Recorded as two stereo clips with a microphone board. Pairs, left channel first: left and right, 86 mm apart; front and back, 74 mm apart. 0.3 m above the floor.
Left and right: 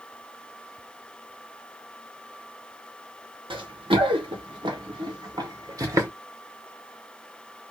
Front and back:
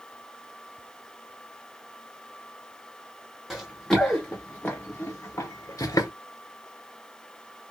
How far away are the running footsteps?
About 1.6 m.